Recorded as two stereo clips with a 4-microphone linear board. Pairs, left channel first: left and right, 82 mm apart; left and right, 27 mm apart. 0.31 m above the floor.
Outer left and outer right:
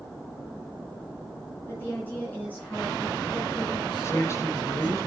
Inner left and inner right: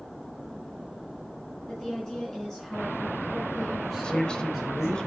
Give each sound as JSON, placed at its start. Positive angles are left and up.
{"t": 1.7, "sound": "a woman speaking", "side_deg": 30, "distance_m": 4.5}
{"t": 4.0, "sound": "a man speaking", "side_deg": 40, "distance_m": 1.4}